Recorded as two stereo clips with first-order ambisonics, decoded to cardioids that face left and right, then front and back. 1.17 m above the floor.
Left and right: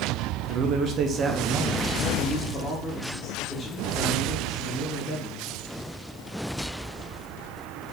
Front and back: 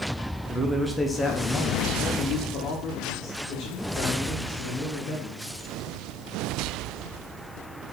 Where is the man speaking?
110° right, 0.7 m; by 5.5 s 25° left, 2 m.